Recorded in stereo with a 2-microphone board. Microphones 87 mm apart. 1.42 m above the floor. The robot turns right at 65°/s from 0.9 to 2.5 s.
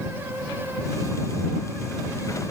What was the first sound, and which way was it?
Only background noise.